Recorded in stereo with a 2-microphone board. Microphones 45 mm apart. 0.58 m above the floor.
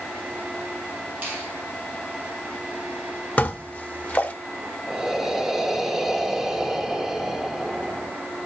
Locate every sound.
1.2 s a finger snap: 40° right (ahead or behind), 6.5 m
3.4 s dishes clattering: 30° left (ahead or behind), 1.0 m
4.9 s breathing: 10° right (ahead or behind), 1.0 m